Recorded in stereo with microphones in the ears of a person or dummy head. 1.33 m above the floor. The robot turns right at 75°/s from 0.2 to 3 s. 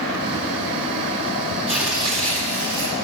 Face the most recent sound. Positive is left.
turn(degrees=-85)